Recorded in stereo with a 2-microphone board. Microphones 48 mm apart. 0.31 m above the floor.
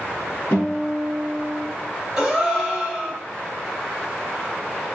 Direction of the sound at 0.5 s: 45° left (ahead or behind).